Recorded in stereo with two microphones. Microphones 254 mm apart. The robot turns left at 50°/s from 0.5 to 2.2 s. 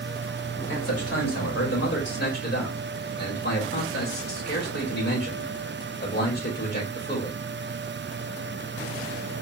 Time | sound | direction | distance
0.7 | a man speaking | 120° left | 2.5 m